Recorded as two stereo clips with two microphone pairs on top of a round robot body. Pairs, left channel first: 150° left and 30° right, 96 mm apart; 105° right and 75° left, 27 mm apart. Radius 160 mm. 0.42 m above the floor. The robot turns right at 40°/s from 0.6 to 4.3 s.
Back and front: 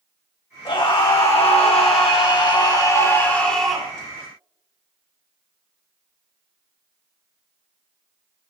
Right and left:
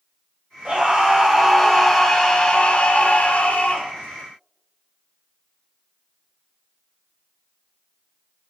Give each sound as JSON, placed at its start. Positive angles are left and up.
{"t": 0.7, "sound": "a scream", "azimuth_deg": 120, "distance_m": 4.5}